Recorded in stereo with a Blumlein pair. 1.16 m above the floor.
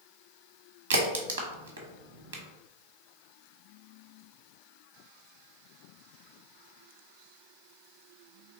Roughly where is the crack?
Ahead right.